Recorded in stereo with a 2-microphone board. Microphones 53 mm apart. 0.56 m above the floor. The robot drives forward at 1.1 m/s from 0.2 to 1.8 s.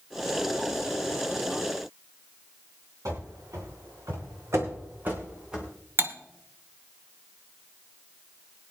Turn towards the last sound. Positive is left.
turn(degrees=-45)  # may be behind; listen again after turning